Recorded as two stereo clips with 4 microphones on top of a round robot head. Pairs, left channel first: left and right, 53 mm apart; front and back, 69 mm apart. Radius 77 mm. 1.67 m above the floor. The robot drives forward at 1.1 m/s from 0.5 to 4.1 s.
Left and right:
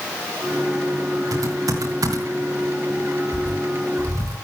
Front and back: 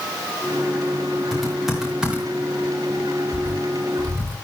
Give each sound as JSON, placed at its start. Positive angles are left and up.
{"t": 1.3, "sound": "typing on a keyboard", "azimuth_deg": -90, "distance_m": 4.0}